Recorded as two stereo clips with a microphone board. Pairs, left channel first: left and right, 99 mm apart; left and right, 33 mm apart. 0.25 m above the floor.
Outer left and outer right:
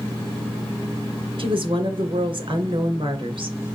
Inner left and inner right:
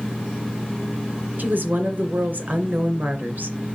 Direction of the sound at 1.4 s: 55° right (ahead or behind).